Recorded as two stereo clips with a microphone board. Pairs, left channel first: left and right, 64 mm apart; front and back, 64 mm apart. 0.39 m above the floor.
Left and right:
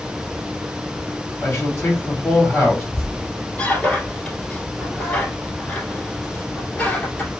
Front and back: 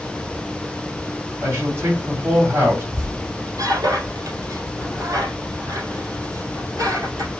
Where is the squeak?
160° left, 2.5 m.